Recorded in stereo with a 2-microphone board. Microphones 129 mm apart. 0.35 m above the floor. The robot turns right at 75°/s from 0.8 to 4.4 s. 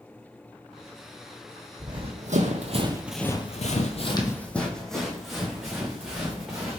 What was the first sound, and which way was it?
Running footsteps, 25° right (ahead or behind).